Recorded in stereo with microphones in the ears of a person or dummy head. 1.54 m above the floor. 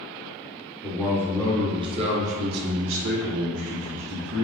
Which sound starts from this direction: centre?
A man speaking, at 0.8 s.